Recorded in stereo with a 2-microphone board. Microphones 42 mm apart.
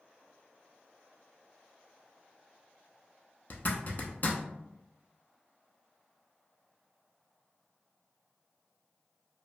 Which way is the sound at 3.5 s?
45° left (ahead or behind).